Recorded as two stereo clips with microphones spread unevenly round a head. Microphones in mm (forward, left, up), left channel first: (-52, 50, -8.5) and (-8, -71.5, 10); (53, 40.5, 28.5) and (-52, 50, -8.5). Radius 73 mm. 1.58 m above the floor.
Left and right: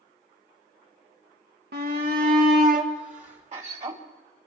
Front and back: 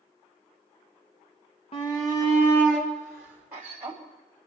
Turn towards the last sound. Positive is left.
turn(degrees=-110)